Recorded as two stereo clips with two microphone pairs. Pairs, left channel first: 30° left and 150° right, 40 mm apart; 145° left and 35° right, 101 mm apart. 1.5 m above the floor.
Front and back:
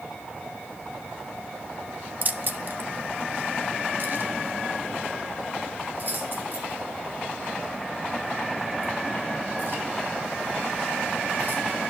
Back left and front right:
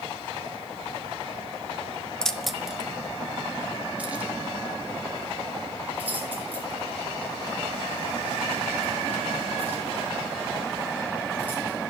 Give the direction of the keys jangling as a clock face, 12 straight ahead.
5 o'clock.